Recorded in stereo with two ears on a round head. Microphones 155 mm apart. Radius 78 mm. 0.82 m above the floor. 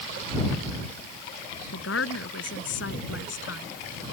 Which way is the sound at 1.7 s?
80° left.